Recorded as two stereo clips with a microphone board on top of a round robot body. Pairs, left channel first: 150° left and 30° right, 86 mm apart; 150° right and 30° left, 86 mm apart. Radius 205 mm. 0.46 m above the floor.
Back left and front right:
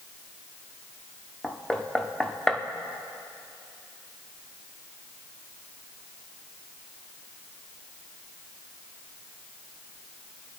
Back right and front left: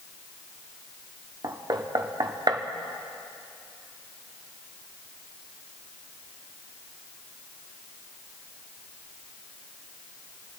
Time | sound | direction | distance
1.4 | knocking | 70° left | 1.2 m